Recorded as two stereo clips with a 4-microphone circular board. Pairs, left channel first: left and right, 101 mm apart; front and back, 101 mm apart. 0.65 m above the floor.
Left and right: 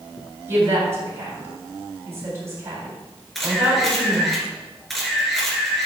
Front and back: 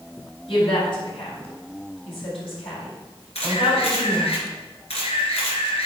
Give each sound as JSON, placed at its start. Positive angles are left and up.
{"t": 0.5, "sound": "a woman speaking", "azimuth_deg": -25, "distance_m": 4.0}
{"t": 3.4, "sound": "a camera shutter", "azimuth_deg": 0, "distance_m": 2.5}